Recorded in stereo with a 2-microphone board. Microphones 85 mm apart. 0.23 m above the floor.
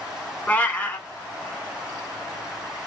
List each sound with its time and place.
0.5 s a cat meowing: 20° left (ahead or behind), 0.5 m